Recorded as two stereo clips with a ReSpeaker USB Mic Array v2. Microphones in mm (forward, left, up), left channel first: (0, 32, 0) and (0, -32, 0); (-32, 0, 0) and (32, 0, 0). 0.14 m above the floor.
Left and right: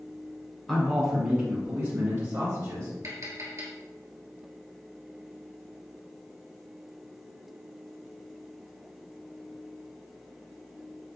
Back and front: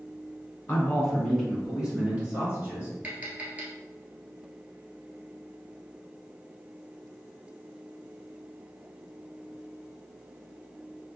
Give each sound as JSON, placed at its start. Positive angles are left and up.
{"t": 0.7, "sound": "a man speaking", "azimuth_deg": 165, "distance_m": 1.1}
{"t": 3.0, "sound": "tapping", "azimuth_deg": -60, "distance_m": 1.1}